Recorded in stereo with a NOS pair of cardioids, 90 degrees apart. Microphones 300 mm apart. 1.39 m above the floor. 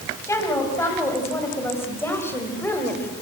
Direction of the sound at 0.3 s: 10° left.